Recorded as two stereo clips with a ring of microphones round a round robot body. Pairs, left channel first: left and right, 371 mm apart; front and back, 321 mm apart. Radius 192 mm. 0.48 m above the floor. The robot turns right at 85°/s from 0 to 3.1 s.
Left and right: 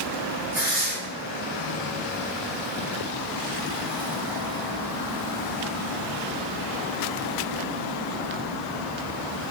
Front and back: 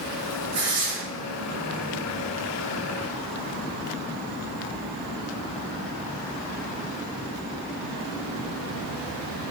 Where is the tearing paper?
170° right, 1.8 m; by 0.9 s 135° right, 1.8 m.